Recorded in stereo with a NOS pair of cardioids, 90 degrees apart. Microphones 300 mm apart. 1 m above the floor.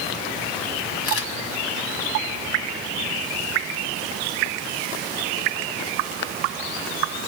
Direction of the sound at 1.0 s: 50° left.